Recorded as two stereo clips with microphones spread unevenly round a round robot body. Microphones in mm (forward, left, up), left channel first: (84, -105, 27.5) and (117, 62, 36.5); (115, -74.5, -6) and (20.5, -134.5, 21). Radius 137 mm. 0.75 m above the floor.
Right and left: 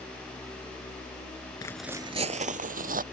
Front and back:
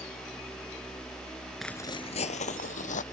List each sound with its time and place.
1.6 s footsteps: 105° right; by 3.0 s 45° left